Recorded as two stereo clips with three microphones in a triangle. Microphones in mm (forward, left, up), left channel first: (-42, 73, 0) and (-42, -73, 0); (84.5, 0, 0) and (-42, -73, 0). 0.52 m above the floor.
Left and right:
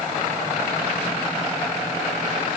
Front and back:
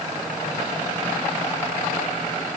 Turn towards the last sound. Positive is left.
No sound to turn to.